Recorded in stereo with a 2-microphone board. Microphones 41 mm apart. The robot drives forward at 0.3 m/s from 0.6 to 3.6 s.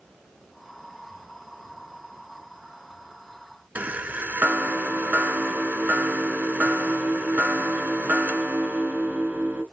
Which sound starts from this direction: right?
A chime, at 3.8 s.